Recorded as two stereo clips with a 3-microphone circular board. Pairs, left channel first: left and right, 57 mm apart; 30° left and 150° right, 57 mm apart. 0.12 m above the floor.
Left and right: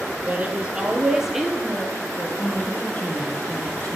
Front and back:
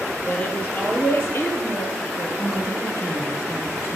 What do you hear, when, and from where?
0.3 s a woman speaking: 30° right, 2.5 m; by 2.3 s 15° left, 2 m
2.4 s a woman speaking: 30° left, 3.5 m